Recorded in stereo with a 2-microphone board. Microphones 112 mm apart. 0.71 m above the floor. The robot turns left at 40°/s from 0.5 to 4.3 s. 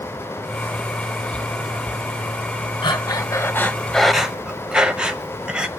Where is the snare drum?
I don't hear a snare drum.